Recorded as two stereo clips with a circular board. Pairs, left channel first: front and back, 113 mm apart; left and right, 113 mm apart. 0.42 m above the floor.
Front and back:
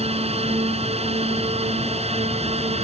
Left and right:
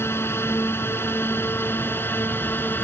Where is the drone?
160° left.